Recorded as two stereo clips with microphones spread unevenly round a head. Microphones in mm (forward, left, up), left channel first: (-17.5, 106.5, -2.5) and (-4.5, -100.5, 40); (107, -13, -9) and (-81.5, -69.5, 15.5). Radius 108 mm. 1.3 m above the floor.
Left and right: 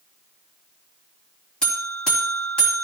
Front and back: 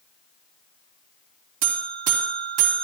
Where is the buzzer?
Straight behind, 3 m.